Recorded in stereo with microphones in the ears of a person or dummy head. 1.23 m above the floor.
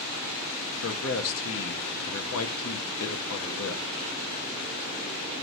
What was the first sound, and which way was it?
A man speaking, 70° left (ahead or behind).